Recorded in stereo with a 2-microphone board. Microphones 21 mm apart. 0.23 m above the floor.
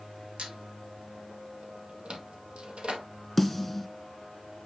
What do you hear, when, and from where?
0.4 s a squeak: 50° right (ahead or behind), 2 m
3.4 s a snare drum: centre (ahead or behind), 2 m